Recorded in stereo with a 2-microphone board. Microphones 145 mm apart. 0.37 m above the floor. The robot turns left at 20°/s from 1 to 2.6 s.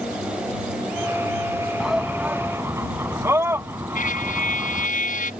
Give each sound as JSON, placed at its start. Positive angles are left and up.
{"t": 1.8, "sound": "a shout", "side_deg": -5}
{"t": 4.0, "sound": "a trumpet", "side_deg": 70}